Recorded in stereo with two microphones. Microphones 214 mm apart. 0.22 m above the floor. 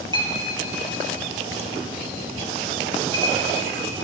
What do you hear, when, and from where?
0.1 s a clink: 20° right (ahead or behind), 3 m